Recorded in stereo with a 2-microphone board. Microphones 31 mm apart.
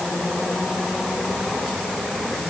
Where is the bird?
No bird in this recording.